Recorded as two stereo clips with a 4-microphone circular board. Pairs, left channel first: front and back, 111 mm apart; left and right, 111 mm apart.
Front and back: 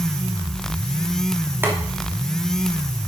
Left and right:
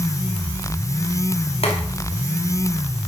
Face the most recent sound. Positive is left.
turn(degrees=110)